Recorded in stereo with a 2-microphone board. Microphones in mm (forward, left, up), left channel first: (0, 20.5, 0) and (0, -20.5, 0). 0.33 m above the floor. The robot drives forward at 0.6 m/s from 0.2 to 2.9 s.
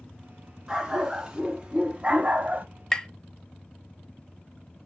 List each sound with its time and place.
0.7 s a dog barking: 15° right (ahead or behind), 1.6 m; by 2.7 s 50° right (ahead or behind), 0.6 m
2.9 s tapping: 15° left (ahead or behind), 0.5 m